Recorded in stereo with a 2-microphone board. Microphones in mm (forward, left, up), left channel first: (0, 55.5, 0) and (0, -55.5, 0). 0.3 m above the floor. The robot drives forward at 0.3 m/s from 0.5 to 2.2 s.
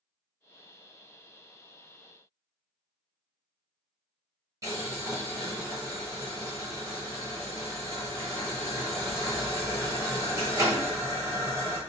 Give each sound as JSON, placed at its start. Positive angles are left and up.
{"t": 4.6, "sound": "boiling", "side_deg": -30, "distance_m": 1.1}